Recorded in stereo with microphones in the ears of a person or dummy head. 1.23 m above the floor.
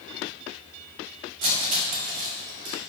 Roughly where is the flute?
No flute in this recording.